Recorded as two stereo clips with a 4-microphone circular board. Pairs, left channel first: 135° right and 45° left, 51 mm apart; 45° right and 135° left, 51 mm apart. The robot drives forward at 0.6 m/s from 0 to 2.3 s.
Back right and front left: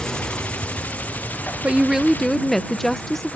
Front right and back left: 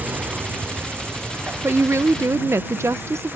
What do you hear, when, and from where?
0.0 s an insect: 155° left; by 3.4 s 175° left
1.6 s a woman speaking: 105° left; by 3.4 s 140° left